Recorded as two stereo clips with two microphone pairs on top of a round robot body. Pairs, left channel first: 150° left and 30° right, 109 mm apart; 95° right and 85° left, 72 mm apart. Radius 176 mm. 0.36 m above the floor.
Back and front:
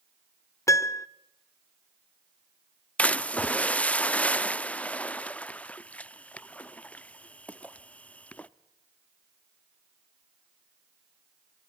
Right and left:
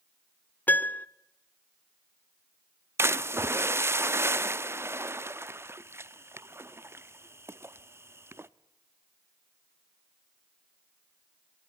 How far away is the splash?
About 0.9 m.